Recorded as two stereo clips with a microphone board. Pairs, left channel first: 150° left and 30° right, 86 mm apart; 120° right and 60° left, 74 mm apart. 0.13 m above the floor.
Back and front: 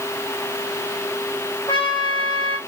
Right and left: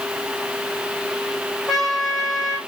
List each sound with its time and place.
1.7 s a trumpet: 145° left, 3.5 m